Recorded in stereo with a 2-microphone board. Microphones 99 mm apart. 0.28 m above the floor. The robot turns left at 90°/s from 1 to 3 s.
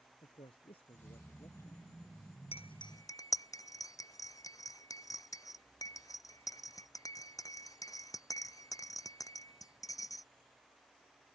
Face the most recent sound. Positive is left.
turn(degrees=35)  # may be behind; listen again after turning